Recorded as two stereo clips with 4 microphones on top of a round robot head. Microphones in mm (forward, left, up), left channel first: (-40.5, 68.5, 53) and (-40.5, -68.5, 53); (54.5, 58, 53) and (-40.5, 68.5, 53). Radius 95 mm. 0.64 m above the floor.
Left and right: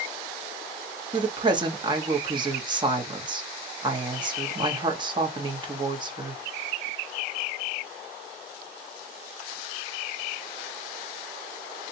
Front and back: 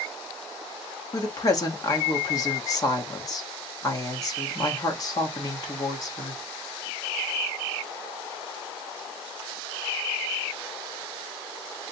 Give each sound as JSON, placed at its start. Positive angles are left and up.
{"t": 1.1, "sound": "a woman speaking", "azimuth_deg": -45, "distance_m": 1.1}